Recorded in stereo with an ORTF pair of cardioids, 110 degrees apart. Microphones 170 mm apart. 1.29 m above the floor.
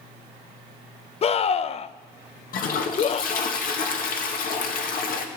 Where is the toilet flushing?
55° left, 1.8 m.